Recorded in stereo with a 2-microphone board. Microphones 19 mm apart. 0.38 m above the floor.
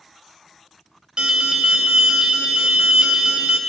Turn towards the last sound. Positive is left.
turn(degrees=-60)  # may be behind; listen again after turning